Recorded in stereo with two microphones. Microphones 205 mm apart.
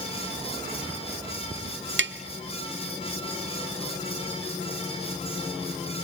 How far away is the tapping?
About 0.9 m.